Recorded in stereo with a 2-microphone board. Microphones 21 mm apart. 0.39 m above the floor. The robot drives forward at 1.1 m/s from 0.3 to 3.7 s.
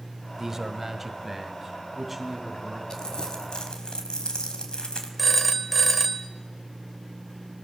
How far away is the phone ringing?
About 1.2 m.